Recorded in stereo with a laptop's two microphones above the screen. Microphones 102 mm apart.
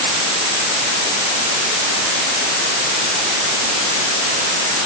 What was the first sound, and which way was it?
Only background noise.